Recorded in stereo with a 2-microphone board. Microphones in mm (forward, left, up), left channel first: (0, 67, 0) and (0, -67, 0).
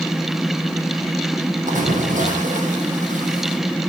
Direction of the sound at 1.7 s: 80° right.